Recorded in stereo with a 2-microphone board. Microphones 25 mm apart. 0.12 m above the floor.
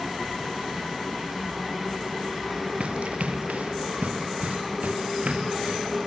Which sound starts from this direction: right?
Running footsteps, at 2.8 s.